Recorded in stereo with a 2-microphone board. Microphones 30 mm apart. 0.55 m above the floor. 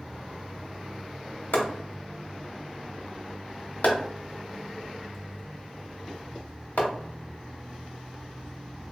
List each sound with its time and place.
1.5 s chopping: 85° left, 0.9 m